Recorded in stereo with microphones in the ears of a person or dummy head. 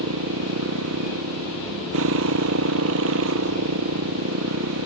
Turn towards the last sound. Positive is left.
turn(degrees=-75)  # may be behind; listen again after turning